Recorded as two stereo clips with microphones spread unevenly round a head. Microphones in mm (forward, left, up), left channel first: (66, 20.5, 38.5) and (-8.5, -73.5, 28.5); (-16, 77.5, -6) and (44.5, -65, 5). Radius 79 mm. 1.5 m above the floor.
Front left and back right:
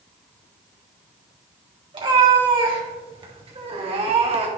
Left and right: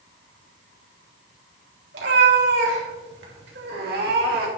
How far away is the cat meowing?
About 3 m.